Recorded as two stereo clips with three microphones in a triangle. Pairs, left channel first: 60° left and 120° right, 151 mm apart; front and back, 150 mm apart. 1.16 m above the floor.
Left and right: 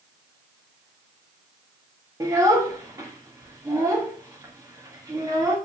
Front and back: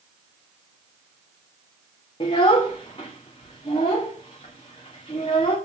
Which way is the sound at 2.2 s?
50° right.